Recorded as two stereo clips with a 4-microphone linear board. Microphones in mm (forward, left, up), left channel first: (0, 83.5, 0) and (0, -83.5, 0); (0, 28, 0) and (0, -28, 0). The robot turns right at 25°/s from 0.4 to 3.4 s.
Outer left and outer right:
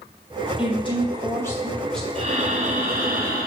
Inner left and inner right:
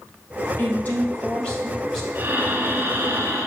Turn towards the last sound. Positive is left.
turn(degrees=-115)